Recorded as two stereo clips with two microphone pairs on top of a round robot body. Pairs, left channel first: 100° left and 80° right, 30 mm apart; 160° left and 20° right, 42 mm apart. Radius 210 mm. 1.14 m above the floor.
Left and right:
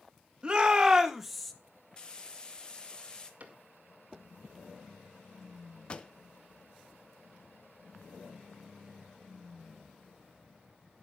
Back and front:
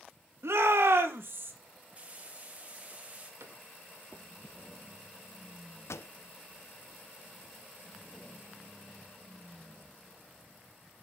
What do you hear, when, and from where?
0.4 s a shout: 20° right, 2.5 m; by 1.5 s 15° left, 2.0 m
2.0 s frying: 35° left, 1.7 m
3.4 s a cupboard door: 40° right, 2.0 m
5.9 s a pop: 160° left, 0.5 m